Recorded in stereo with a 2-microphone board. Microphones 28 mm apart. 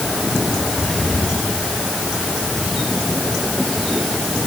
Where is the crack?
I don't hear a crack.